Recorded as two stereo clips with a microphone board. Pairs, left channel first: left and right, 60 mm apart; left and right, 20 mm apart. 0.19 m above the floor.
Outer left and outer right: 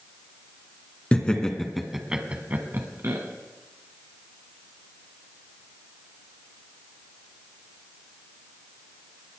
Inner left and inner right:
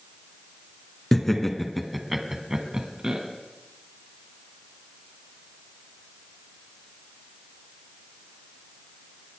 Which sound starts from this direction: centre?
Laughter, at 1.1 s.